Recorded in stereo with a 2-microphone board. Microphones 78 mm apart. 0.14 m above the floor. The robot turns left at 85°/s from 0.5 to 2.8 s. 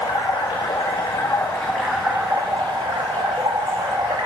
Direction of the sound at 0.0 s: 115° left.